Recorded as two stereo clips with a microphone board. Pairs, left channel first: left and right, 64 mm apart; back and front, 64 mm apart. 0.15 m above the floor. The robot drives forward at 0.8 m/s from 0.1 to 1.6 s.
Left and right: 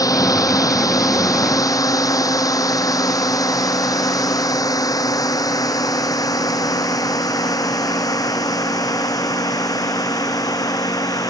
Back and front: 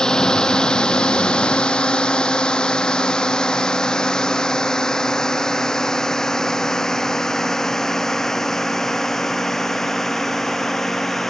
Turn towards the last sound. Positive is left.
turn(degrees=95)